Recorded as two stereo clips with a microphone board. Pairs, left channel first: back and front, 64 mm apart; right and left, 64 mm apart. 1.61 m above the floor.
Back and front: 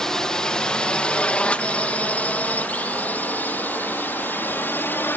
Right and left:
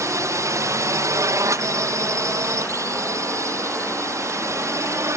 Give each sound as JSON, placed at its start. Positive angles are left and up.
{"t": 0.0, "sound": "a drone", "azimuth_deg": 100}